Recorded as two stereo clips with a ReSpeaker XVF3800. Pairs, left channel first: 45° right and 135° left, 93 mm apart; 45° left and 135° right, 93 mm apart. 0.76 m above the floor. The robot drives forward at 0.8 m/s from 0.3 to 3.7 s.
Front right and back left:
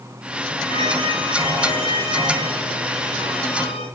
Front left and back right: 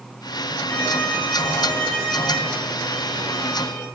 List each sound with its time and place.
0.7 s a violin: 30° right, 9 m; by 3.9 s 40° right, 7 m